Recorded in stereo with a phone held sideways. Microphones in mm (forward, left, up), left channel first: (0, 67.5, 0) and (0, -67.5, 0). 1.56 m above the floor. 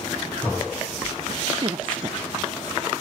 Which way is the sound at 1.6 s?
40° right (ahead or behind).